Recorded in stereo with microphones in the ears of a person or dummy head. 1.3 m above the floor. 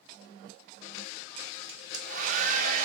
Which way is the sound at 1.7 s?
45° right (ahead or behind).